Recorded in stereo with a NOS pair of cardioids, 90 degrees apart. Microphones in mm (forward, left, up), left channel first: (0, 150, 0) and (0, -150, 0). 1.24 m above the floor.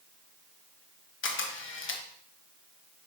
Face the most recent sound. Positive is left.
turn(degrees=40)